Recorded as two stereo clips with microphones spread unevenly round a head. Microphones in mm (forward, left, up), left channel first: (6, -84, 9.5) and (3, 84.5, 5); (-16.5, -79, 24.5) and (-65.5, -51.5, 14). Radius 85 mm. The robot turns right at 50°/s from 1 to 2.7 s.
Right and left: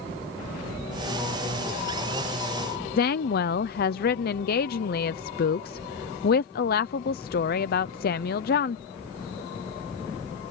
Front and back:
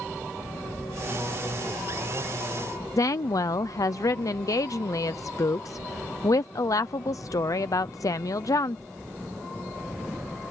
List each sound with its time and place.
3.0 s a woman speaking: 55° right